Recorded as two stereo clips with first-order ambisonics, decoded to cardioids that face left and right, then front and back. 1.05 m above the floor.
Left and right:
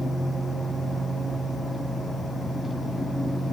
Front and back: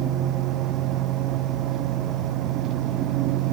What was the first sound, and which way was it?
Only background noise.